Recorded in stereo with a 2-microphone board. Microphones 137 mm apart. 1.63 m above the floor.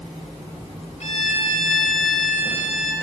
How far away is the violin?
About 3.5 m.